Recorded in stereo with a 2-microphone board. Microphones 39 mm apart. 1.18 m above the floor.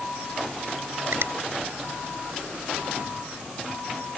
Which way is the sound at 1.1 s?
80° right.